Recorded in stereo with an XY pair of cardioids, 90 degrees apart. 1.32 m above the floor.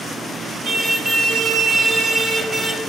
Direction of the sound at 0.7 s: 55° right.